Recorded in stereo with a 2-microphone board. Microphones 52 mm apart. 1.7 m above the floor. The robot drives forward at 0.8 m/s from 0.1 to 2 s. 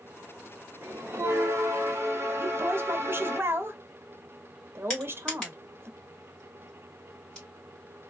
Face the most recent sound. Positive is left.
turn(degrees=15)  # may be behind; listen again after turning